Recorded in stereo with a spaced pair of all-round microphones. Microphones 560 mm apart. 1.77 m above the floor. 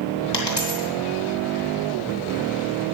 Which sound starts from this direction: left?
A dropped coin, at 0.3 s.